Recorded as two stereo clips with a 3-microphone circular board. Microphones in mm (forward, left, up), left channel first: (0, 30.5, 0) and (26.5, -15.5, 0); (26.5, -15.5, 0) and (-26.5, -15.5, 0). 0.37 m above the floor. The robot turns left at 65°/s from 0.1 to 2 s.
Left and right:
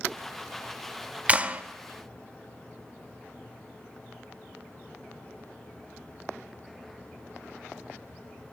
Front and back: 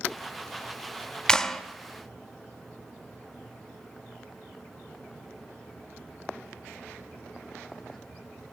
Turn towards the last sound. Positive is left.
turn(degrees=-105)